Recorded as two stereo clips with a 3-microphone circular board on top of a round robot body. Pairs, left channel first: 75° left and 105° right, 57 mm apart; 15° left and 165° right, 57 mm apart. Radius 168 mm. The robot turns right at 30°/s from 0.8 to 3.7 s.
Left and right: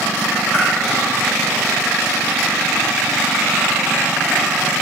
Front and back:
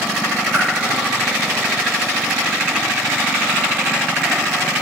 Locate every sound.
0.5 s a whoosh: 135° left, 0.7 m